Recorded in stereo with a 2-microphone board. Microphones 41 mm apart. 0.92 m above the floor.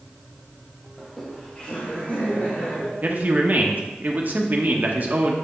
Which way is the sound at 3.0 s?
45° right (ahead or behind).